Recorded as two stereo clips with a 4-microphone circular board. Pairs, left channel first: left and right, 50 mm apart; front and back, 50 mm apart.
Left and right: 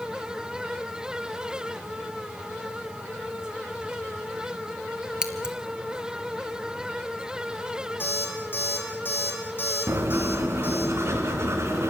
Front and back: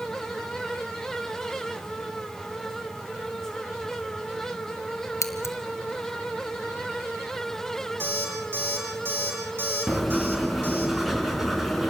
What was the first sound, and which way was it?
Scissors, 15° right.